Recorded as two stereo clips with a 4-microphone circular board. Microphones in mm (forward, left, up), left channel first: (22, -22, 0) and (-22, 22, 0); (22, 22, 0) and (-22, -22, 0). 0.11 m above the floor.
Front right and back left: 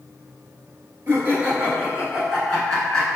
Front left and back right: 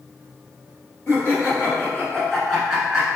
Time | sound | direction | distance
1.1 | laughter | 85° left | 1.8 m